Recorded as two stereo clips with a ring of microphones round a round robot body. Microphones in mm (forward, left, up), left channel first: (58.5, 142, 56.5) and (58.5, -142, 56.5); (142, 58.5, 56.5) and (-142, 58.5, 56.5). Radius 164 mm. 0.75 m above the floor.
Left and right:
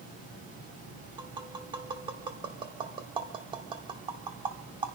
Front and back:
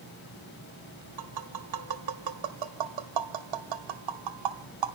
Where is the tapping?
165° right, 0.8 m.